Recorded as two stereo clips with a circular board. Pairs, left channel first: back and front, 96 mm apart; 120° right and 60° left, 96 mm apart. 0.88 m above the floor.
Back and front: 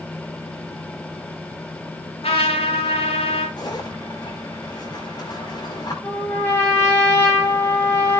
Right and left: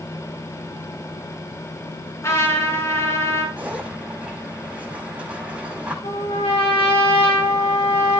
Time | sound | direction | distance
2.2 | a trumpet | straight behind | 5.5 m
3.6 | a zipper | 135° left | 4 m
6.0 | a trumpet | 120° right | 7.5 m